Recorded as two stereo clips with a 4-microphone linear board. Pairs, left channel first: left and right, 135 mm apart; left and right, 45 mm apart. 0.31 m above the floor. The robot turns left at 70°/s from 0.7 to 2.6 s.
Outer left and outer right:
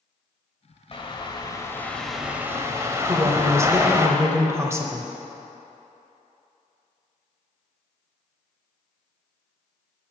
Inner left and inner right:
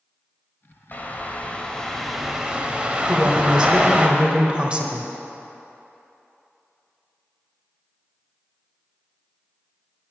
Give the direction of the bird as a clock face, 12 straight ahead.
9 o'clock.